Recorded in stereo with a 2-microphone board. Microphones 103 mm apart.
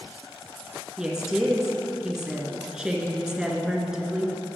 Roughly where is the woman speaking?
Centre.